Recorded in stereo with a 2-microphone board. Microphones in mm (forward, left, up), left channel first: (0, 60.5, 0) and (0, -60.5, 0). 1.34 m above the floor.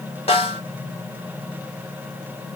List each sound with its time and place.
0.3 s a snare drum: 55° left (ahead or behind), 1.0 m